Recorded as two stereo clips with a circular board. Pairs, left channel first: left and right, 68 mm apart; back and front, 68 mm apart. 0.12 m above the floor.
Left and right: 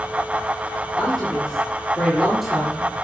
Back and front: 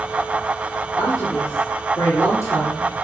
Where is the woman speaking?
175° left, 3 m; by 2.9 s 175° right, 2.5 m.